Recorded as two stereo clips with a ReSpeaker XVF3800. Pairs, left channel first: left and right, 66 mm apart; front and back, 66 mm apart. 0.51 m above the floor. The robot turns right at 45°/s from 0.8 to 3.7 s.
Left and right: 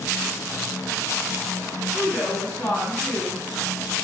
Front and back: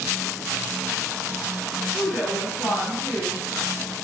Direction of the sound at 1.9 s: 5° right.